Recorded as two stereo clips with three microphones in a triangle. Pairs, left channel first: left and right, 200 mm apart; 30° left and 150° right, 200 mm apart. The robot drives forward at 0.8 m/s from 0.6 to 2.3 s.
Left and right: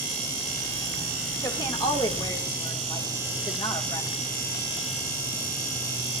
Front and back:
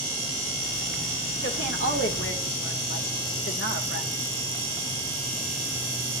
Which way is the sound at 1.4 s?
20° left.